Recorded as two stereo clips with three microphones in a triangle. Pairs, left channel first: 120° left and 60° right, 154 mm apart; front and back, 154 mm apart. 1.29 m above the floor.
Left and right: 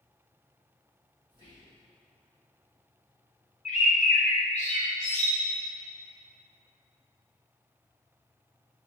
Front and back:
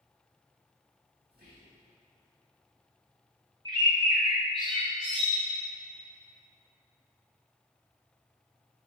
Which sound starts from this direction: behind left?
A bird, at 3.6 s.